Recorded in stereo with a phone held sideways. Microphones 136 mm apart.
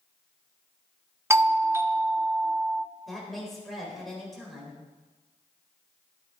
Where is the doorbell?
20° right (ahead or behind), 0.6 m.